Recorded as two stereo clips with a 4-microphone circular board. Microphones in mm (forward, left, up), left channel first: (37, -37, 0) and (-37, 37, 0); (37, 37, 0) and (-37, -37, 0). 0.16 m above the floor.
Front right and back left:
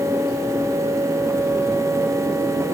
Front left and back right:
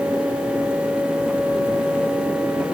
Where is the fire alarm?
No fire alarm in this recording.